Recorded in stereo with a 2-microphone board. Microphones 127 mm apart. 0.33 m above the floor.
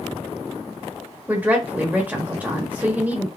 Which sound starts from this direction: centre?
A woman speaking, at 1.3 s.